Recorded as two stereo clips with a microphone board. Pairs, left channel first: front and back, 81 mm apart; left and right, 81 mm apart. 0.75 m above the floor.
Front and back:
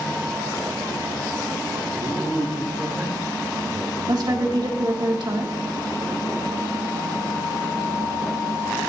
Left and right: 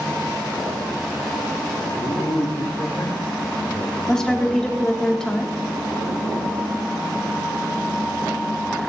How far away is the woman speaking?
About 1.9 m.